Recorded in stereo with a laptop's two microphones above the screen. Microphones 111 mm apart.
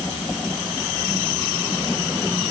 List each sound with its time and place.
Only background noise.